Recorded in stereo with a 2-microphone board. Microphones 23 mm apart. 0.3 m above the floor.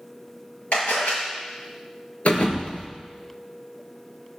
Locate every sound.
0.7 s a camera shutter: 65° left (ahead or behind), 6.5 m
2.2 s a thud: 70° left (ahead or behind), 2.5 m